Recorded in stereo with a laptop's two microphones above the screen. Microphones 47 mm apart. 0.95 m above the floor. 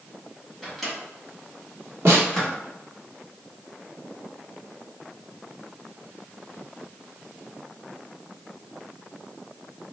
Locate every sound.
0.6 s a microwave: 5° left (ahead or behind), 0.9 m
2.0 s a snare drum: 60° right (ahead or behind), 1.1 m